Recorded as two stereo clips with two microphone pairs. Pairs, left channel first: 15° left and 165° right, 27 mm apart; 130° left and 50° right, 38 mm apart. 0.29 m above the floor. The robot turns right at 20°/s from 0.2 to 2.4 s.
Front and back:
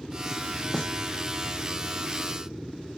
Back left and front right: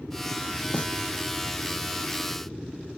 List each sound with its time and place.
0.7 s a snare drum: 80° left; by 0.9 s 85° left